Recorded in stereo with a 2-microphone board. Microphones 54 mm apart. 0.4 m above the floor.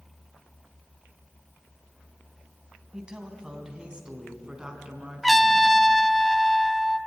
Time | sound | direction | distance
2.9 | a woman speaking | 15° right (ahead or behind) | 3.5 m
5.2 | a trumpet | centre (ahead or behind) | 0.6 m